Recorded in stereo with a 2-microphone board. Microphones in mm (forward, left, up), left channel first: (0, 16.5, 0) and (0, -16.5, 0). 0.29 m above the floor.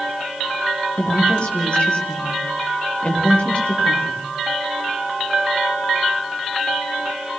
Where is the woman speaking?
35° left (ahead or behind), 8.5 m.